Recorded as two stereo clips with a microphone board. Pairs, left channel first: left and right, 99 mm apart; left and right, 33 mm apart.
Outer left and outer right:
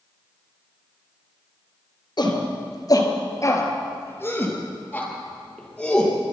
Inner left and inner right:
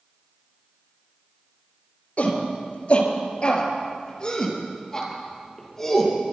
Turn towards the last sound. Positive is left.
turn(degrees=5)  # may be behind; listen again after turning